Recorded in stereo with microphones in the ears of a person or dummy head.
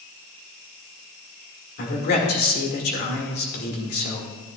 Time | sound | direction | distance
1.8 | a man speaking | 55° left (ahead or behind) | 1.9 m